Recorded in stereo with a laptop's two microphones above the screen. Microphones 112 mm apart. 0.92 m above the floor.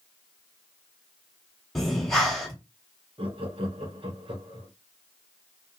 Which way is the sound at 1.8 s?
5° left (ahead or behind).